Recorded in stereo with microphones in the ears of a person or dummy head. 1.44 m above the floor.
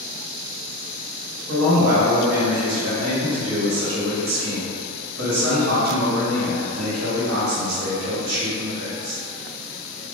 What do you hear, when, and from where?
1.5 s a man speaking: 70° right (ahead or behind), 1.7 m